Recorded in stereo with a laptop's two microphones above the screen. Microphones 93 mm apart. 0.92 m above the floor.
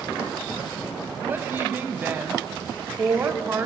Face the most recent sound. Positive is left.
turn(degrees=-20)  # may be behind; listen again after turning